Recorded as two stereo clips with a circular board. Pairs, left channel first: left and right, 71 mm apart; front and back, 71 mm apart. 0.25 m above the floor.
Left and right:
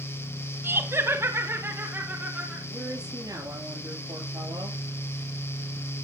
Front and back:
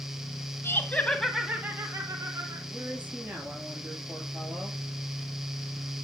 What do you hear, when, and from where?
0.6 s laughter: 45° right, 1.5 m; by 2.6 s 155° right, 2.5 m
2.7 s a woman speaking: 115° right, 6 m